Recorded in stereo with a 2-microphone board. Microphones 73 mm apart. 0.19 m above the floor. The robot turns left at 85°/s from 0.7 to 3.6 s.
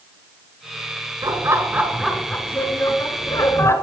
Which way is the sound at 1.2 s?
100° right.